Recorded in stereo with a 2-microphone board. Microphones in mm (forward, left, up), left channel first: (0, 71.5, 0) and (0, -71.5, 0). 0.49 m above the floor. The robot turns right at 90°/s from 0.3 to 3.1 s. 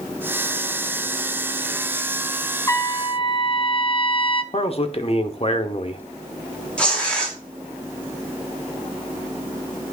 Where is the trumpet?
30° left, 0.6 m; by 4.4 s 70° left, 0.6 m.